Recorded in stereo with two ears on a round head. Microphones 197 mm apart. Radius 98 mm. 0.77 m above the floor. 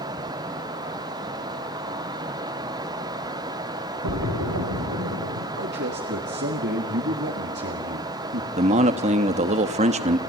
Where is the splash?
80° right, 2.5 m.